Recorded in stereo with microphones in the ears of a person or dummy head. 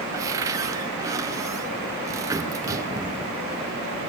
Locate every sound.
0.1 s a cupboard door: 20° right (ahead or behind), 1.4 m